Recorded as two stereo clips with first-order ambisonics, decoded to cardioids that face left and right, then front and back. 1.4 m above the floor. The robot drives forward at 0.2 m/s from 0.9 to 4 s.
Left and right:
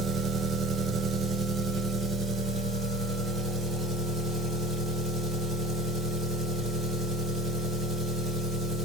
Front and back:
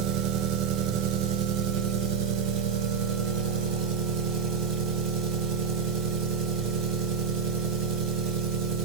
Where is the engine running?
160° right, 0.8 m; by 8.8 s 170° right, 1.4 m.